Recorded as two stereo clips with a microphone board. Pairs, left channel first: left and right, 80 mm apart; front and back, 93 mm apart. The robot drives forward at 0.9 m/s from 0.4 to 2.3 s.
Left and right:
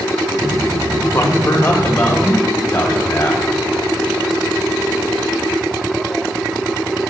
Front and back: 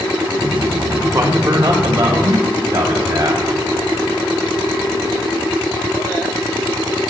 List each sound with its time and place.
1.1 s a man speaking: 135° left, 1.5 m; by 3.5 s 155° left, 2.5 m